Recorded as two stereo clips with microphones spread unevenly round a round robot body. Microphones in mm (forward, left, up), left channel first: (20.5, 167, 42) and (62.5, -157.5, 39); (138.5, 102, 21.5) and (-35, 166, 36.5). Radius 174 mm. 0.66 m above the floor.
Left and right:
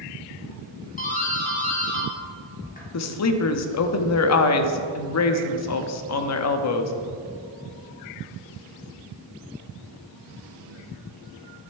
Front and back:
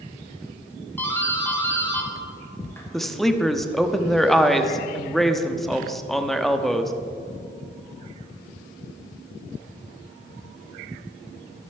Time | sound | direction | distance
1.0 | a doorbell | 45° left | 1.9 m
2.9 | a woman speaking | 65° left | 0.8 m